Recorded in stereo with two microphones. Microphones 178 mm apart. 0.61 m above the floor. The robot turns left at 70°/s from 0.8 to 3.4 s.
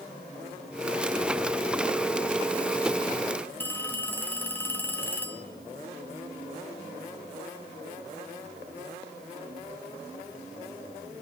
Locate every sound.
3.6 s a phone ringing: 10° left (ahead or behind), 2.5 m